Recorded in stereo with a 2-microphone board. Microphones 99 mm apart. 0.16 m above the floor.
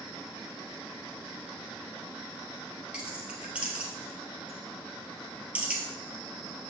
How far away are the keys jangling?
About 2.5 m.